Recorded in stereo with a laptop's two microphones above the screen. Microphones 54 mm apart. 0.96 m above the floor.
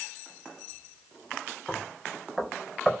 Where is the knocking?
Centre (ahead or behind), 4 m.